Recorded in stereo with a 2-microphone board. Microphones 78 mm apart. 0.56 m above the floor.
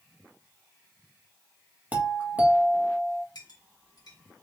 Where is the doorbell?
20° right (ahead or behind), 1.5 m.